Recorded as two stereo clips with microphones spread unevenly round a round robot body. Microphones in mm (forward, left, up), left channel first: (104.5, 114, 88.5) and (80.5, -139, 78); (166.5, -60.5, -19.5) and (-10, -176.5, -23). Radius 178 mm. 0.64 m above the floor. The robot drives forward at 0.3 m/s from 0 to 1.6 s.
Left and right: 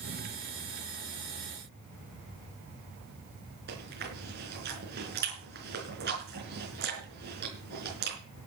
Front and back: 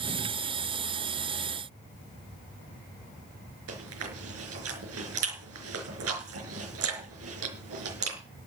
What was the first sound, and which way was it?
Chewing, 155° right.